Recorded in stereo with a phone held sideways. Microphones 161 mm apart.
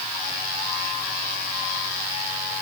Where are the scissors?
No scissors in this recording.